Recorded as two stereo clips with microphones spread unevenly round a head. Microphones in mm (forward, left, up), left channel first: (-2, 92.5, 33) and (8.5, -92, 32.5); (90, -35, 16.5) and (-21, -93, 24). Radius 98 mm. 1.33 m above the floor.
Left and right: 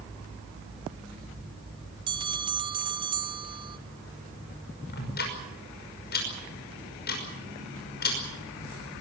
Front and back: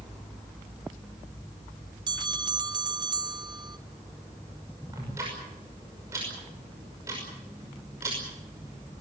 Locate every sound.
2.1 s a bell: 140° right, 0.9 m
4.9 s ticking: 130° left, 5.5 m